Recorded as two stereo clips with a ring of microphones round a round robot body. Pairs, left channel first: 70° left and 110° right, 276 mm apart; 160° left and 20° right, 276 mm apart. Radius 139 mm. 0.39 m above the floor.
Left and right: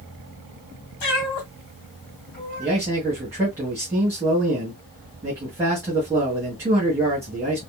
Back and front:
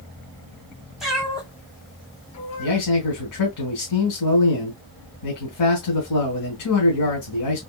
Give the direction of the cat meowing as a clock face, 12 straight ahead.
10 o'clock.